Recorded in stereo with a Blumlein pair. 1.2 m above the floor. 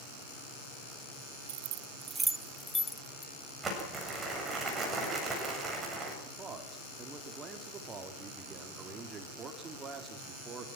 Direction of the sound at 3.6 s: 15° right.